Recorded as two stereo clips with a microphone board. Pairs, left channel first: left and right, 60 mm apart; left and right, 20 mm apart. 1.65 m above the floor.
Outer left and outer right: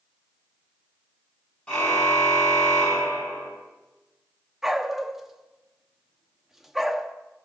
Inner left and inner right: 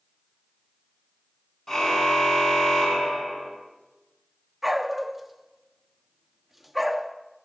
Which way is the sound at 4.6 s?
5° right (ahead or behind).